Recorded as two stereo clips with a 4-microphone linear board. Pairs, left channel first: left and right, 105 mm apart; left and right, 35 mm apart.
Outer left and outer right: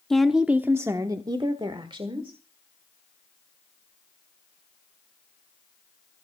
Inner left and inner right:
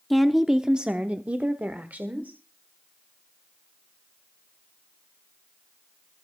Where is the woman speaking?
5° left (ahead or behind), 0.8 m; by 2.4 s 60° right (ahead or behind), 1.7 m.